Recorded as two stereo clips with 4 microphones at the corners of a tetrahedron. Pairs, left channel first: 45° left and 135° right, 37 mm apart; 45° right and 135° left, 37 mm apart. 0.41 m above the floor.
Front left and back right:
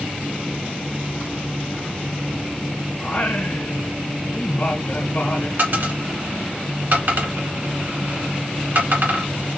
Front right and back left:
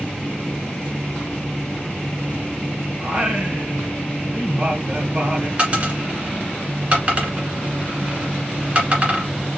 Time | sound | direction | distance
3.0 | singing | 85° left | 1.3 m
5.6 | a dropped coin | 165° right | 2.0 m